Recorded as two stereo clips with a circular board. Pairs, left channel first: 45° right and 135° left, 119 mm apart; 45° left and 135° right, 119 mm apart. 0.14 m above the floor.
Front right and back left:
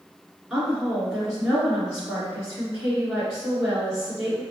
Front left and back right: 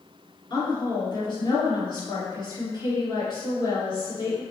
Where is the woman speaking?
55° left, 1.5 m.